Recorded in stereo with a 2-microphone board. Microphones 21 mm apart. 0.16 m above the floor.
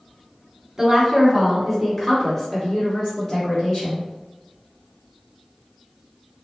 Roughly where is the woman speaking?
Right.